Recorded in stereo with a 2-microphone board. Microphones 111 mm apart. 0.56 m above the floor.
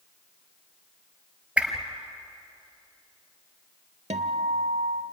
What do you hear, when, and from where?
1.6 s a whoosh: 10° right (ahead or behind), 2.5 m
4.1 s a guitar: 80° right, 1.0 m